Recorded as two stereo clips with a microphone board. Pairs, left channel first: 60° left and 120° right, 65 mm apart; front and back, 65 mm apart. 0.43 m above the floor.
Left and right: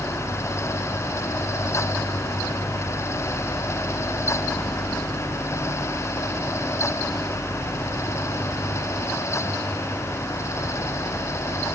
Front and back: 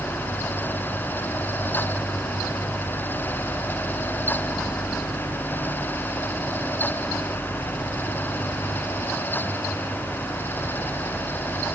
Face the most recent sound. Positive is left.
No sound to turn to.